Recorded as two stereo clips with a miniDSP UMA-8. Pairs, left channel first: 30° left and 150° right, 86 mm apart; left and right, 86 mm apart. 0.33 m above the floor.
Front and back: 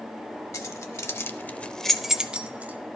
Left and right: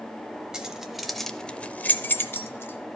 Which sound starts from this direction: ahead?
Keys jangling, at 0.5 s.